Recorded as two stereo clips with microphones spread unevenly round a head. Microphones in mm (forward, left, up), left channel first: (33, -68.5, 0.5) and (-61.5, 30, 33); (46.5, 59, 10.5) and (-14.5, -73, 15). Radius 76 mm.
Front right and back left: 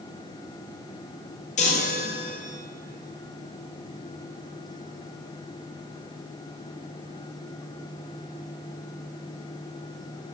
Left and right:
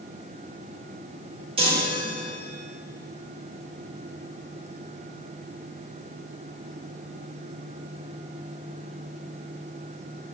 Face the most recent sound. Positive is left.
turn(degrees=-65)